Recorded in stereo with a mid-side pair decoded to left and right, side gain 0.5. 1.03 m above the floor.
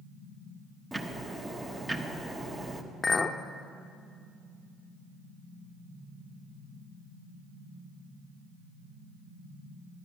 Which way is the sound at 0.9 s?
20° right.